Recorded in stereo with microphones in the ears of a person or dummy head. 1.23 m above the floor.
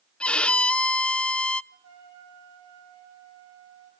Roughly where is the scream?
I don't hear a scream.